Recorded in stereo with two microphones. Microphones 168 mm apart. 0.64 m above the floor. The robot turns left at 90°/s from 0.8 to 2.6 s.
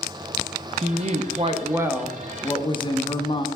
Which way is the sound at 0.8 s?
65° right.